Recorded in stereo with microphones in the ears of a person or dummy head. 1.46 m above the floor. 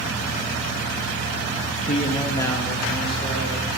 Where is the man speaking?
45° left (ahead or behind), 0.9 m; by 3.7 s 5° right (ahead or behind), 2 m.